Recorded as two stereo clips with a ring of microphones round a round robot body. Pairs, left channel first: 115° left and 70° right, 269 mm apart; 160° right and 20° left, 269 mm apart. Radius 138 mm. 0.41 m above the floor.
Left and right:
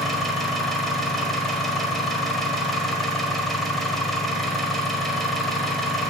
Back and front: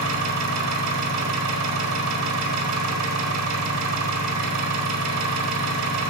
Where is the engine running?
25° left, 1.5 m.